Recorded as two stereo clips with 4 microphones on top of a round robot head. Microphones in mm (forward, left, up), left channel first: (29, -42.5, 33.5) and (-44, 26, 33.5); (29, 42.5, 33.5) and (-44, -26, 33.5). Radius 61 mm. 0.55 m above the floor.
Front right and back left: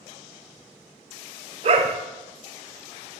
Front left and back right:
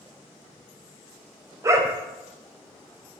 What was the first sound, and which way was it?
A dog barking, 165° left.